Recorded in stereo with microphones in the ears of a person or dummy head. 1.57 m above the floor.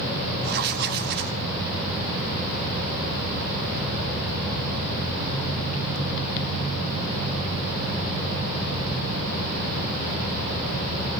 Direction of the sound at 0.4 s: 55° right (ahead or behind).